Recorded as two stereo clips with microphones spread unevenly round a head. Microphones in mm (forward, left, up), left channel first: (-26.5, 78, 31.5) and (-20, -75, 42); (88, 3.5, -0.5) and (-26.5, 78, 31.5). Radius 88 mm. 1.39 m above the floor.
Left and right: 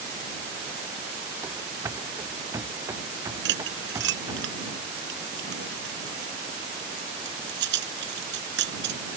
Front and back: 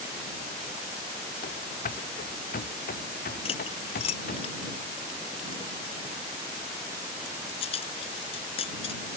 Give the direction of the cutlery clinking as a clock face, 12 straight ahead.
3 o'clock.